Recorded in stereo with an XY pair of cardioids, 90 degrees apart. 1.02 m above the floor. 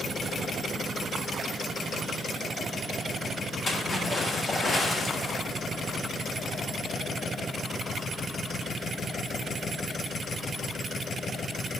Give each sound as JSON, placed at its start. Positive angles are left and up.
{"t": 3.7, "sound": "a splash", "azimuth_deg": 35, "distance_m": 3.5}